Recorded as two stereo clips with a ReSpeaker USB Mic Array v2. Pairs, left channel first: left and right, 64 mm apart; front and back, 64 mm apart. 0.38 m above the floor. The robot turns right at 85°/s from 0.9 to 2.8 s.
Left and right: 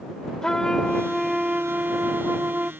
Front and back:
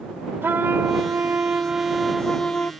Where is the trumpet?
160° left; by 2.7 s 45° right.